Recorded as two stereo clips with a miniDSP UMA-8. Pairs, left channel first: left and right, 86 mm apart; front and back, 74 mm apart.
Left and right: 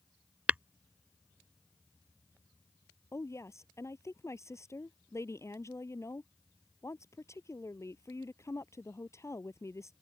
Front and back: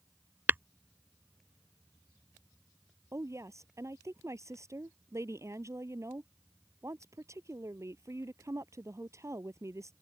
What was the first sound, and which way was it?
Tapping, 150° right.